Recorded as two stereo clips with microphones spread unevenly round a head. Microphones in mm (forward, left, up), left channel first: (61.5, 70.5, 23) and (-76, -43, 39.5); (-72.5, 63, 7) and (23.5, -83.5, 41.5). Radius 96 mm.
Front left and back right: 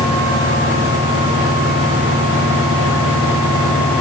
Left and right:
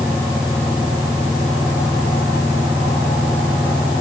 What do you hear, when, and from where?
Only background noise.